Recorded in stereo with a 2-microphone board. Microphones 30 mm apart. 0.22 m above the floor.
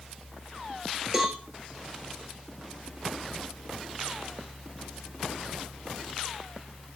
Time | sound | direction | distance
1.1 | a cowbell | 20° right (ahead or behind) | 4 m